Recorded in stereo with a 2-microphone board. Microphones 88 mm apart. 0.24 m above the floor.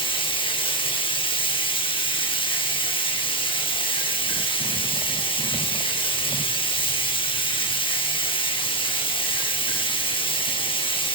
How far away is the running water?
About 4.5 m.